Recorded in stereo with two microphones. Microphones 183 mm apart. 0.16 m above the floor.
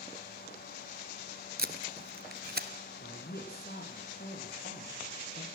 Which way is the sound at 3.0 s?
60° left (ahead or behind).